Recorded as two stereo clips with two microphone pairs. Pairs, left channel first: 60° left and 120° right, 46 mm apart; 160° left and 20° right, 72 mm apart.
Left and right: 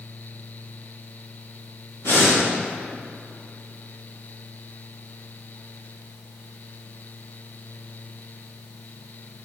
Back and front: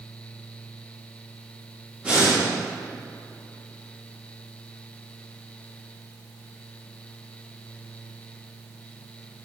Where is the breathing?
50° left, 2.5 m.